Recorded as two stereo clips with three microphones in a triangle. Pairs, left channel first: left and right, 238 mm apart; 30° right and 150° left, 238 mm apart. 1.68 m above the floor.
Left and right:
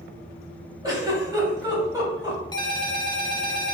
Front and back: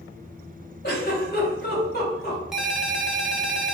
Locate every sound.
0.8 s a giggle: 20° right, 1.7 m
2.5 s a ringtone: 65° left, 0.6 m